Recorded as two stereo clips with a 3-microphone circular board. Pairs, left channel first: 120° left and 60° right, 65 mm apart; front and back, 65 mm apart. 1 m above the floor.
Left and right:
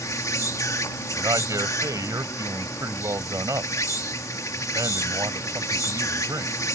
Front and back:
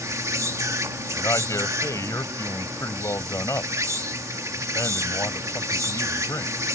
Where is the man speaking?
35° right.